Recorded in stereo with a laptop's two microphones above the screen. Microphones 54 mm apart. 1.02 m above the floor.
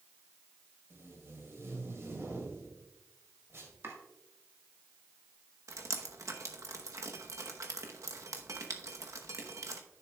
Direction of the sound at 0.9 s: 55° right (ahead or behind).